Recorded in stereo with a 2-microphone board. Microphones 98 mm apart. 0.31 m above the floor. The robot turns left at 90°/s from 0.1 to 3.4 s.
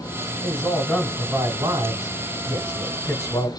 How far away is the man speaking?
About 1.8 m.